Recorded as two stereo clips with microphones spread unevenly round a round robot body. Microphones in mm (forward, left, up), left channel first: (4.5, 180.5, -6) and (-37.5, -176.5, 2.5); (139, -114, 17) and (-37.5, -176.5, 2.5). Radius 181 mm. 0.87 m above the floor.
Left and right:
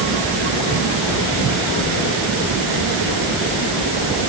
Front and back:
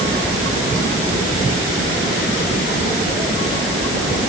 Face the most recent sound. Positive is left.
No sound to turn to.